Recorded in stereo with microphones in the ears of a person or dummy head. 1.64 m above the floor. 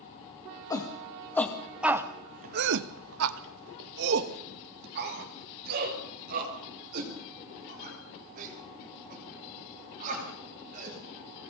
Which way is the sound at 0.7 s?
20° left (ahead or behind).